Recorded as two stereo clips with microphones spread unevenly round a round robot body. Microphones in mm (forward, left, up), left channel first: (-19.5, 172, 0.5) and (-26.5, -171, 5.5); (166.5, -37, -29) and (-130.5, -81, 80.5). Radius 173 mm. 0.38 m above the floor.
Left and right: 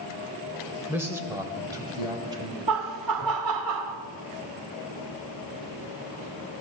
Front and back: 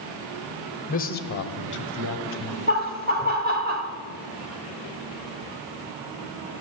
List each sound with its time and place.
0.9 s a man speaking: 10° right, 1.2 m; by 2.6 s 15° right, 2 m
2.7 s laughter: 105° right, 1.7 m